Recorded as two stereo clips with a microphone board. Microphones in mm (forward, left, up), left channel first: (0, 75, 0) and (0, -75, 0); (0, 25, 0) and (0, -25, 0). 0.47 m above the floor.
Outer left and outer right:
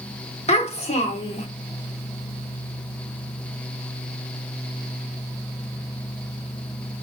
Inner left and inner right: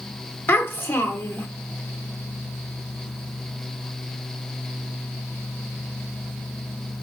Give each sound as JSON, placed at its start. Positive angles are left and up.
{"t": 0.5, "sound": "a child speaking", "side_deg": 40, "distance_m": 0.7}